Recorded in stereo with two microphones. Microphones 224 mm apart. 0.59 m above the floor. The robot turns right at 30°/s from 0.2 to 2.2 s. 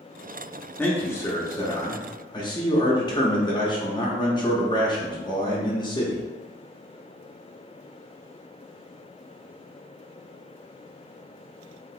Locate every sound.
0.8 s a man speaking: 10° left (ahead or behind), 0.7 m; by 6.2 s 20° left (ahead or behind), 0.7 m